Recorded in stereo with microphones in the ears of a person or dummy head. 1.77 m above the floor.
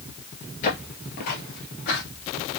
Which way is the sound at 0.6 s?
35° left (ahead or behind).